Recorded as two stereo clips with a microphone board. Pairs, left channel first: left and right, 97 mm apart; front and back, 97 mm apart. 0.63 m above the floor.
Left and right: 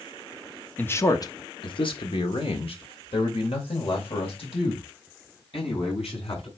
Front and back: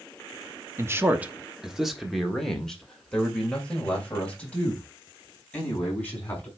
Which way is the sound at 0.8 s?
145° left.